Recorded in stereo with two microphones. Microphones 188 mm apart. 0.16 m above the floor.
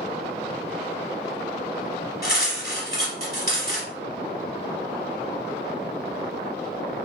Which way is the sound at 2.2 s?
55° left (ahead or behind).